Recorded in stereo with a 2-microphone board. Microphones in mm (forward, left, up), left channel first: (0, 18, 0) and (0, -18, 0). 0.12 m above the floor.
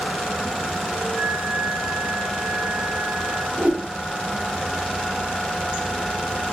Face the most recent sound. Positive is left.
turn(degrees=-45)  # may be behind; listen again after turning